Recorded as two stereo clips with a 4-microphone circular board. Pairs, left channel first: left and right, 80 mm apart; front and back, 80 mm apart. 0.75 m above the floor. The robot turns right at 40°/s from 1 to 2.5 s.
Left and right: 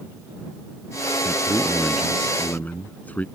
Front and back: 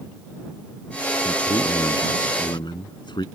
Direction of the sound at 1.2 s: 30° right.